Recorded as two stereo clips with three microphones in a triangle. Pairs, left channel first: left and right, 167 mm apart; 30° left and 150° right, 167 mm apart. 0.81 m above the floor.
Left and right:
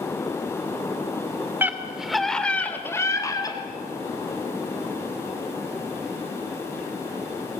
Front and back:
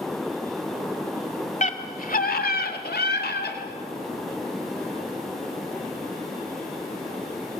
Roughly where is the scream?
Ahead.